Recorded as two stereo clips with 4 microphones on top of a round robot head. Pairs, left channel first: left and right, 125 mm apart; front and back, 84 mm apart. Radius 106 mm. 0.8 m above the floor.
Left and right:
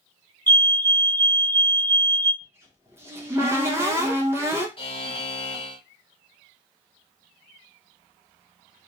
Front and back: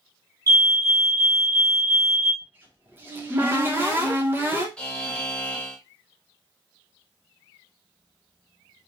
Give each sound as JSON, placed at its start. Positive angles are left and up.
{"t": 0.5, "sound": "a fire alarm", "azimuth_deg": 165, "distance_m": 1.9}
{"t": 2.4, "sound": "a cupboard door", "azimuth_deg": -140, "distance_m": 0.8}
{"t": 4.8, "sound": "a buzzer", "azimuth_deg": 75, "distance_m": 1.1}